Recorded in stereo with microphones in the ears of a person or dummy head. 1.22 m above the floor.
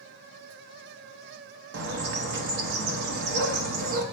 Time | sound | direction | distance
1.7 | a bird | 60° right (ahead or behind) | 0.9 m